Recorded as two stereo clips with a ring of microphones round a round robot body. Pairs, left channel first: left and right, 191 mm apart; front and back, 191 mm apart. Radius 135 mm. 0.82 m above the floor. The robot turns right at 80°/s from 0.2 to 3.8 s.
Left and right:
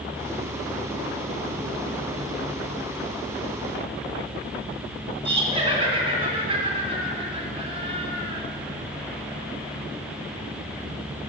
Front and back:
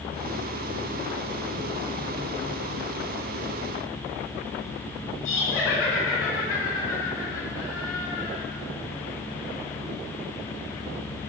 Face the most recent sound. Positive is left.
turn(degrees=-30)